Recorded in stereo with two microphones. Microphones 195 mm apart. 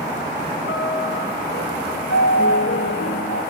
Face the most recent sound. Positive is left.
turn(degrees=85)